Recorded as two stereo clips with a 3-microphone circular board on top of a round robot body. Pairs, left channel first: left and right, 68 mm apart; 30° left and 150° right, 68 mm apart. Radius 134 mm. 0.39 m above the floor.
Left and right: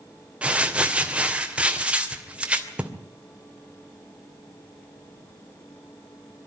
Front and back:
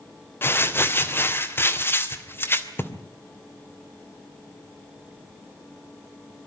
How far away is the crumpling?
About 2.5 m.